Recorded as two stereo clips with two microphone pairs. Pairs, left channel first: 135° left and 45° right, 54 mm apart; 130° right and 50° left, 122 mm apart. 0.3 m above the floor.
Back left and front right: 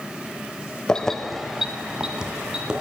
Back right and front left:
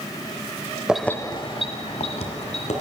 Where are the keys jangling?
110° left, 0.6 m; by 2.8 s 115° right, 2 m.